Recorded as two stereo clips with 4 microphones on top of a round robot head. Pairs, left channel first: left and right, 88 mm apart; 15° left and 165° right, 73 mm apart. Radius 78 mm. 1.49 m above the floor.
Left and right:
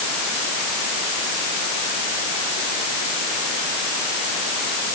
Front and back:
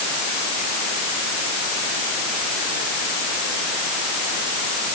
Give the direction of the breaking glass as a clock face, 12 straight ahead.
No breaking glass in this recording.